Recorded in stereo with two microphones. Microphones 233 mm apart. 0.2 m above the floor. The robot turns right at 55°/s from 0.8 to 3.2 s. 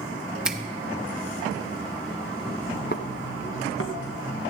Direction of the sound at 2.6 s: 40° left (ahead or behind).